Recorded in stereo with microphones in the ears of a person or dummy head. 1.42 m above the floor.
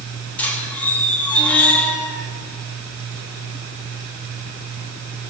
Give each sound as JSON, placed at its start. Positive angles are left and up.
{"t": 0.4, "sound": "a squeak", "side_deg": 5, "distance_m": 1.3}